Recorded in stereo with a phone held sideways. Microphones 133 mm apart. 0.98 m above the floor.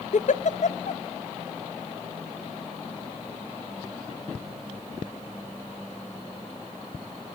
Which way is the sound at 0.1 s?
65° left (ahead or behind).